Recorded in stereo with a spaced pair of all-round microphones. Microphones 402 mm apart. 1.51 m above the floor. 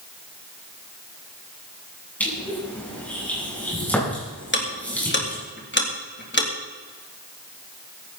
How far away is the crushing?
About 9.5 m.